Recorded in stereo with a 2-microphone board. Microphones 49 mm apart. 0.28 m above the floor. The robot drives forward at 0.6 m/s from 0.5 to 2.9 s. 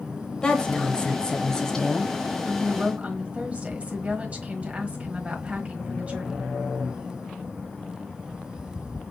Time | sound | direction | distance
0.4 | a woman speaking | 20° left (ahead or behind) | 0.9 m
2.5 | a woman speaking | 30° right (ahead or behind) | 1.2 m